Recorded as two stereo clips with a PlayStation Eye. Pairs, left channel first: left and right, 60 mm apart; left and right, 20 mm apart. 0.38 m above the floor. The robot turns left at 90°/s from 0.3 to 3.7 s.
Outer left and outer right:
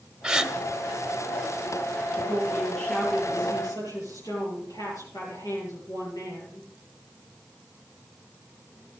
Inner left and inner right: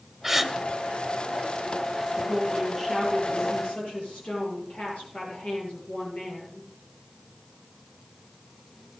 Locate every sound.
0.2 s a gasp: 10° right (ahead or behind), 1.2 m; by 0.5 s centre (ahead or behind), 1.2 m
2.1 s a woman speaking: 135° right, 9.5 m; by 6.7 s 85° left, 9.5 m